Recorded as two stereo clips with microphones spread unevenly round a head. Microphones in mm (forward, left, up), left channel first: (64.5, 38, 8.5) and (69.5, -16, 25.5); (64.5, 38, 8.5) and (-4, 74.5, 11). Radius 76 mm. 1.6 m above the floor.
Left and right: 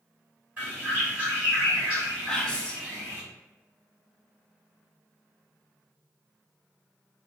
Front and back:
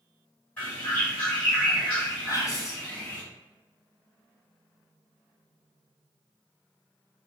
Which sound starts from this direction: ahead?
Whispering, at 2.3 s.